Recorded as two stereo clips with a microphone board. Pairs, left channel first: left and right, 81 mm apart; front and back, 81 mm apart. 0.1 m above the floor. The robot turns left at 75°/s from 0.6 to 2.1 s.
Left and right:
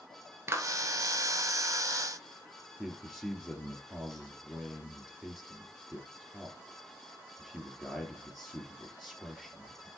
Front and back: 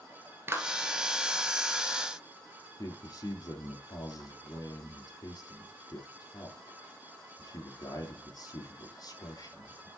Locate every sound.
0.5 s a clap: 130° right, 1.2 m; by 0.7 s 140° right, 1.2 m
2.8 s a man speaking: straight ahead, 2.5 m